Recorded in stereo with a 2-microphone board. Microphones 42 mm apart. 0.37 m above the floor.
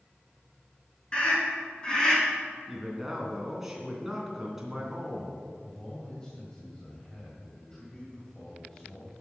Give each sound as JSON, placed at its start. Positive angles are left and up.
{"t": 1.1, "sound": "a scream", "side_deg": 25, "distance_m": 5.5}
{"t": 2.7, "sound": "a man speaking", "side_deg": -10, "distance_m": 3.0}
{"t": 5.6, "sound": "a man speaking", "side_deg": 20, "distance_m": 2.5}